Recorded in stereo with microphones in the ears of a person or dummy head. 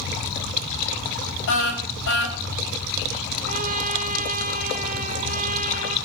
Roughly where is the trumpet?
Right.